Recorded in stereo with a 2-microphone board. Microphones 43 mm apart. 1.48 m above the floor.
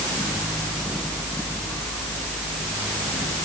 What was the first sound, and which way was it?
Only background noise.